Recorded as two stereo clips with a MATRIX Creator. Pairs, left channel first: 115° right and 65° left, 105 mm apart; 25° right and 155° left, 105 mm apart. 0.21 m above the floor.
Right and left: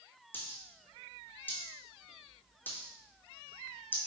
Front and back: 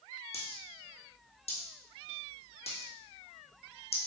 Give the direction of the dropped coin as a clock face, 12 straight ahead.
1 o'clock.